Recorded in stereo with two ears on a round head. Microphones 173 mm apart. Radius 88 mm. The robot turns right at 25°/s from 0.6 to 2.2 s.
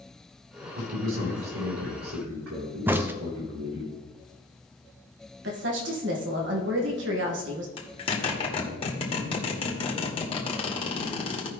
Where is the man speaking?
115° right, 5 m; by 3.9 s 75° right, 5 m.